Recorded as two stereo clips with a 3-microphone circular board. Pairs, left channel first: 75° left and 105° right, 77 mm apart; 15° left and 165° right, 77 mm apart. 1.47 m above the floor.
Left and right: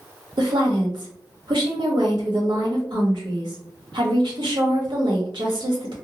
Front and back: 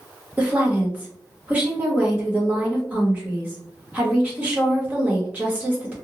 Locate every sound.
0.4 s a woman speaking: 95° right, 1.1 m